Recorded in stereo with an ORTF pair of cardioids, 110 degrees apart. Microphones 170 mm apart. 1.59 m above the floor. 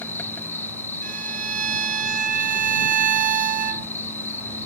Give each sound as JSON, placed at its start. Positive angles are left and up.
{"t": 0.0, "sound": "an insect", "azimuth_deg": 15}
{"t": 1.0, "sound": "a violin", "azimuth_deg": -50}